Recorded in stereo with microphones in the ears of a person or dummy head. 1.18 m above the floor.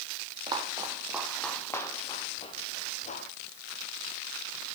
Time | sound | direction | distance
0.5 | footsteps | 30° right (ahead or behind) | 2.5 m